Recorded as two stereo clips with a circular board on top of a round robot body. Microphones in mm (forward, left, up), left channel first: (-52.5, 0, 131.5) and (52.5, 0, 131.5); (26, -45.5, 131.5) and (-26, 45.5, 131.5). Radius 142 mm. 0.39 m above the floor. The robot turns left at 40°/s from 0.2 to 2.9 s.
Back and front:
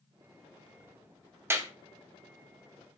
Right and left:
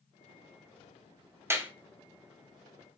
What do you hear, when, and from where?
1.5 s a clap: 60° left, 1.2 m; by 1.7 s 50° left, 1.2 m